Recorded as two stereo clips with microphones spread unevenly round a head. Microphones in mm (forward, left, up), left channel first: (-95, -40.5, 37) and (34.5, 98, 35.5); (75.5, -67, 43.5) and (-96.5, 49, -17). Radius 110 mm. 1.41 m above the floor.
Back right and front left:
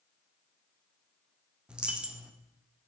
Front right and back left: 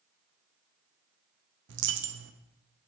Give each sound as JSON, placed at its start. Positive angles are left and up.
{"t": 1.7, "sound": "a dropped coin", "azimuth_deg": 130, "distance_m": 0.8}